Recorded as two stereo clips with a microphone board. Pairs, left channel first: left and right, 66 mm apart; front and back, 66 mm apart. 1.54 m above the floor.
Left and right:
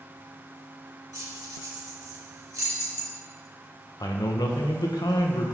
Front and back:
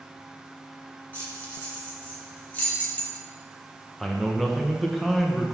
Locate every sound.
1.1 s keys jangling: 65° right, 3 m
4.0 s a man speaking: 85° left, 1.2 m